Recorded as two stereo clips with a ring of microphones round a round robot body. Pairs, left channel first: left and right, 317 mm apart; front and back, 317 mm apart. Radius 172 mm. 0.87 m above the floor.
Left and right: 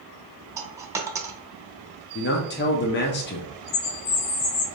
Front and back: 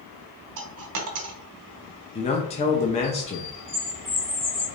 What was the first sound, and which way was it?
A dropped coin, 170° right.